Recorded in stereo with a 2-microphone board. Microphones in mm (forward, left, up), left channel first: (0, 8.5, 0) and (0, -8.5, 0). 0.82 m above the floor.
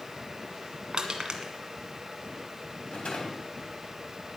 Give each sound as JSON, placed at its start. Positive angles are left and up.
{"t": 0.9, "sound": "crushing", "side_deg": -50, "distance_m": 1.7}
{"t": 2.9, "sound": "a rattle", "side_deg": 85, "distance_m": 3.5}